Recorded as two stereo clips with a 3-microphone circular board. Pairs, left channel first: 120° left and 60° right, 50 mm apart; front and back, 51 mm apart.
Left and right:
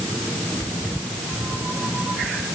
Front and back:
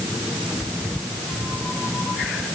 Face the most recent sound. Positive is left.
No sound to turn to.